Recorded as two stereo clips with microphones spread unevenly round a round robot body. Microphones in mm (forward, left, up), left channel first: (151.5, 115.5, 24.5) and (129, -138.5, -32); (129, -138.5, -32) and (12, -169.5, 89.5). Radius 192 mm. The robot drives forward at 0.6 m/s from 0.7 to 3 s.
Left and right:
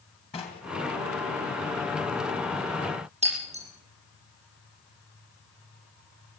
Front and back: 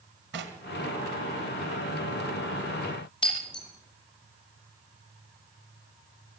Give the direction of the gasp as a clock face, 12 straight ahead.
I don't hear a gasp.